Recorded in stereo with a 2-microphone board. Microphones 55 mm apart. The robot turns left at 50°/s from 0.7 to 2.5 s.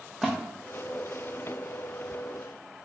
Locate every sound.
0.2 s a splash: 5° right (ahead or behind), 0.6 m